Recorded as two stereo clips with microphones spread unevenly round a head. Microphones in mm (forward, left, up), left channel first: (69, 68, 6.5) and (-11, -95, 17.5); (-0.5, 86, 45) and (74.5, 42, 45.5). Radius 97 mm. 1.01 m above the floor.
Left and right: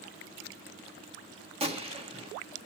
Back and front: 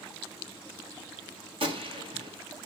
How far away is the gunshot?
About 1.9 m.